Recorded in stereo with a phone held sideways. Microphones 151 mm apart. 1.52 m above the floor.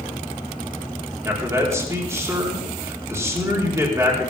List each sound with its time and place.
1.2 s a man speaking: 20° right (ahead or behind), 5 m